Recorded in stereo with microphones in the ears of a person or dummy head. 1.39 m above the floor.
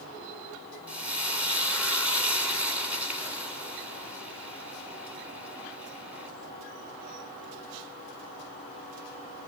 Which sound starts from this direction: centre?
Frying, at 0.9 s.